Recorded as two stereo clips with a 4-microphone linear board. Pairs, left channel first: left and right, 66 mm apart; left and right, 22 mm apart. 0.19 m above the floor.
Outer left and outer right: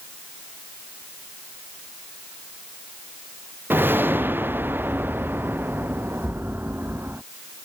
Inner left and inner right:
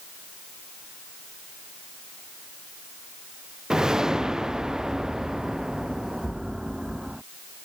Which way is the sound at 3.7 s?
30° right (ahead or behind).